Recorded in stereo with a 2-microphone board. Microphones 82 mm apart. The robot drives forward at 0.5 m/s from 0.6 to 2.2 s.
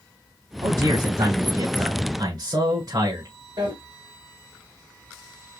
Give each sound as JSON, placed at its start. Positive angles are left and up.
{"t": 0.6, "sound": "a man speaking", "side_deg": -45, "distance_m": 2.5}
{"t": 3.6, "sound": "a drawer", "side_deg": -70, "distance_m": 2.0}